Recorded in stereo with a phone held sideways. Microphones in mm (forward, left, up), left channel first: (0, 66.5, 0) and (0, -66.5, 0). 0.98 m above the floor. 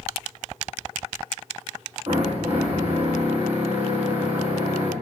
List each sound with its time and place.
2.1 s a drill: 50° right (ahead or behind), 5.5 m